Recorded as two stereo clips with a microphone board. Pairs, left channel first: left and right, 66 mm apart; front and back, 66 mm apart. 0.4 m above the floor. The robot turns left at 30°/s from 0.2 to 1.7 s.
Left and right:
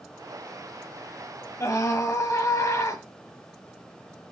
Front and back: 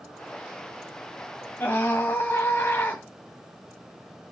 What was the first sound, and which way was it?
A scream, 55° left.